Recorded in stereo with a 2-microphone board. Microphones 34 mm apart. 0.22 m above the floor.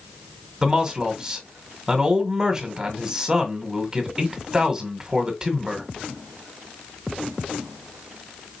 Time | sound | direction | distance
0.6 | a man speaking | 25° right (ahead or behind) | 1.7 m